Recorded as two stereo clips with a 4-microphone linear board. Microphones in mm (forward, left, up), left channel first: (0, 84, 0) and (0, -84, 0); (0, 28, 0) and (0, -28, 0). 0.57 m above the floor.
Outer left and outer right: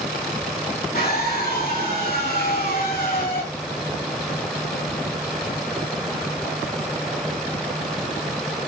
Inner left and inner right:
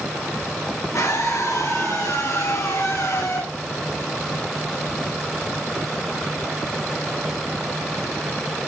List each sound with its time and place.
0.9 s a scream: 70° left (ahead or behind), 6.5 m